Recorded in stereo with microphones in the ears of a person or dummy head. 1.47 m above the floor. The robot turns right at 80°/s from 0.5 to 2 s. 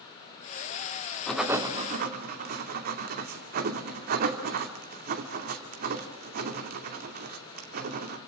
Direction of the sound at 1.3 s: 10° left (ahead or behind).